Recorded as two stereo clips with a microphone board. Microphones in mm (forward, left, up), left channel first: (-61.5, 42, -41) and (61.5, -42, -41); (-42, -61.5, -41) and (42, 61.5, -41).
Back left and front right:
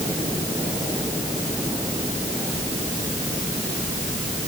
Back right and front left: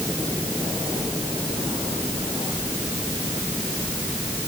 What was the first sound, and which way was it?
Only background noise.